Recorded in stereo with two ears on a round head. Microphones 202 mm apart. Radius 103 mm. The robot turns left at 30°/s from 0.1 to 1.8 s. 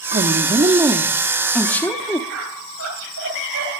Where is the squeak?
80° right, 7.5 m.